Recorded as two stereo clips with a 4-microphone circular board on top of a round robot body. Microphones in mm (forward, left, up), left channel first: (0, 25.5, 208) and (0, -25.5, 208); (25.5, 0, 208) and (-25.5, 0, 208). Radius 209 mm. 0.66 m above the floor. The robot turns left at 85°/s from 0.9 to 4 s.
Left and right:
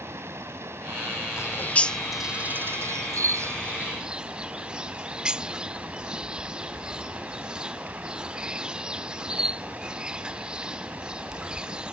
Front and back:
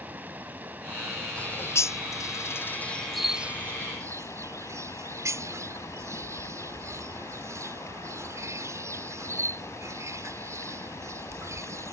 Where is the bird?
60° left; by 11.9 s 160° right.